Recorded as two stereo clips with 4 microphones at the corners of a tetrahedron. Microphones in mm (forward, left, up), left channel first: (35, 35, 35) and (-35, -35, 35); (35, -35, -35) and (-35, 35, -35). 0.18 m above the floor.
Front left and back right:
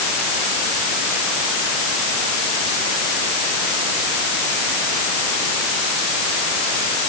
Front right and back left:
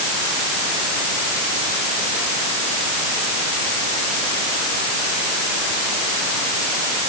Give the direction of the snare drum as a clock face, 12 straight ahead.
No snare drum in this recording.